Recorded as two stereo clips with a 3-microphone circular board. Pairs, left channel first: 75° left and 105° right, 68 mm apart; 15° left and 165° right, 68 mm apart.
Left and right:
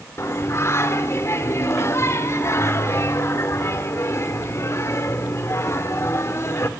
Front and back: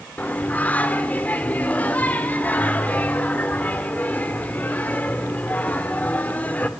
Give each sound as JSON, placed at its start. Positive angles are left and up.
{"t": 0.2, "sound": "singing", "azimuth_deg": 70, "distance_m": 1.7}